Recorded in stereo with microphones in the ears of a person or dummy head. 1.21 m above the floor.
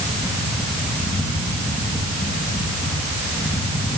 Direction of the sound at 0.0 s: 15° left (ahead or behind).